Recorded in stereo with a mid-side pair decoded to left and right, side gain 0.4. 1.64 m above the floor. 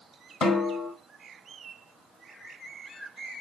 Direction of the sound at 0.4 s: 65° left.